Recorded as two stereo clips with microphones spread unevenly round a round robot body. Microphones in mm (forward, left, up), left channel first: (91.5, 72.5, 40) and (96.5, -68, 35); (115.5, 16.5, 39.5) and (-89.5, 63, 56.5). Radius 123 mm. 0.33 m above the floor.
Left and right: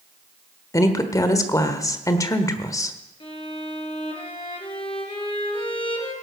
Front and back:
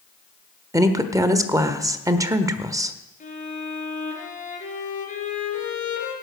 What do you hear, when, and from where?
0.7 s a woman speaking: 105° left, 1.2 m
3.2 s a violin: 40° left, 4.5 m